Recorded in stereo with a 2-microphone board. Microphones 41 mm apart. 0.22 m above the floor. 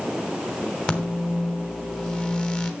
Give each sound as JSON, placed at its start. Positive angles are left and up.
{"t": 0.9, "sound": "a microwave", "side_deg": 20, "distance_m": 1.3}